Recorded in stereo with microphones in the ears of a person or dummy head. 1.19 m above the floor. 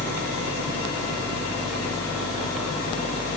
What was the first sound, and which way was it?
Only background noise.